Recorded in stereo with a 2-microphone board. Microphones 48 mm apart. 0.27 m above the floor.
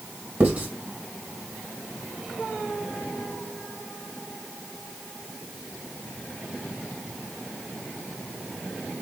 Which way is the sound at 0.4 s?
40° right (ahead or behind).